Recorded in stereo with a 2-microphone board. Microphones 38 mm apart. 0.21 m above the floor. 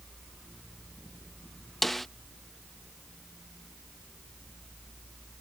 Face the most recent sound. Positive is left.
turn(degrees=5)  # may be behind; listen again after turning